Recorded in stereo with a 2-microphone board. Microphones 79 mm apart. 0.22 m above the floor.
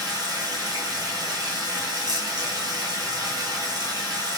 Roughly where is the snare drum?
No snare drum in this recording.